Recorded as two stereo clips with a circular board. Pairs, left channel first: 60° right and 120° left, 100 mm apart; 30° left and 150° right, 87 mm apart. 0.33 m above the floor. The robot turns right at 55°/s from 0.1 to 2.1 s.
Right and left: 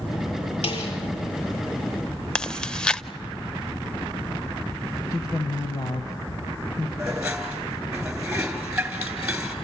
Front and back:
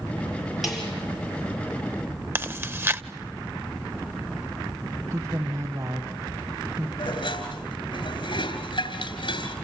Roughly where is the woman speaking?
Right.